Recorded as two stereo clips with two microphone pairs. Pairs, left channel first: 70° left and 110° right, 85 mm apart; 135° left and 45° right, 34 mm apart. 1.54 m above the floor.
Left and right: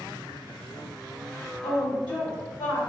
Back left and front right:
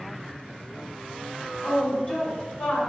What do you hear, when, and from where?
1.6 s a woman speaking: 50° left, 1.0 m; by 2.8 s 130° left, 1.3 m